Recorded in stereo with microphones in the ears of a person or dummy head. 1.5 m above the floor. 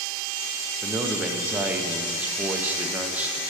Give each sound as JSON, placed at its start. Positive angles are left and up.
{"t": 0.8, "sound": "a man speaking", "side_deg": -5, "distance_m": 0.7}